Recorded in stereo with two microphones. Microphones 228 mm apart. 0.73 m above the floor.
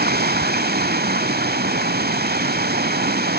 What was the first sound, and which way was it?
Running water, 45° right (ahead or behind).